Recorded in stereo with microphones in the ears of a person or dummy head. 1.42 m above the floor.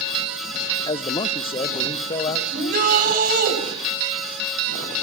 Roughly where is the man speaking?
Left.